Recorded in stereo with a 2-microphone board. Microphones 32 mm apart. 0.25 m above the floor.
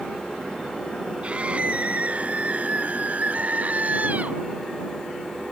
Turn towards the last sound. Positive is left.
turn(degrees=-50)  # may be behind; listen again after turning